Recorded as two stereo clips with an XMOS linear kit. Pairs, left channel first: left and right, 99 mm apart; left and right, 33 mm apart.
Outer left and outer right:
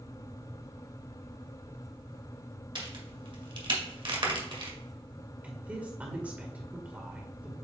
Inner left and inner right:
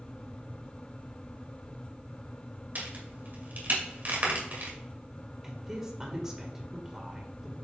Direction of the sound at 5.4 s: 15° right (ahead or behind).